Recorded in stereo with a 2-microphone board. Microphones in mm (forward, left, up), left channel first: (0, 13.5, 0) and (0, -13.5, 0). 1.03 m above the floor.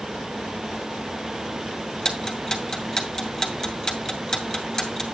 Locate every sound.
2.0 s ticking: 25° left (ahead or behind), 2 m